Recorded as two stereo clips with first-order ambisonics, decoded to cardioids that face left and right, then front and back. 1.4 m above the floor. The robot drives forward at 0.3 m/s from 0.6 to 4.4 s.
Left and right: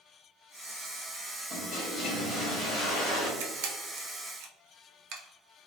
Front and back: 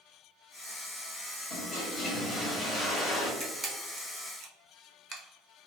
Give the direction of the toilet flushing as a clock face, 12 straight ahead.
10 o'clock.